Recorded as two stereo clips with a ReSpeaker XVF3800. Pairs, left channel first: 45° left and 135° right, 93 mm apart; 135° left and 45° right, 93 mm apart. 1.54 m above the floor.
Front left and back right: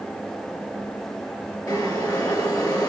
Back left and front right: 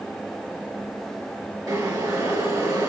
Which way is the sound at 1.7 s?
Straight ahead.